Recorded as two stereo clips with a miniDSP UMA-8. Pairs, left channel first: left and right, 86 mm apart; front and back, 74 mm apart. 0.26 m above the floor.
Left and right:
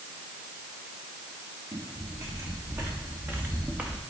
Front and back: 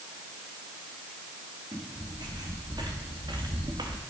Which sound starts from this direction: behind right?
Footsteps, at 1.7 s.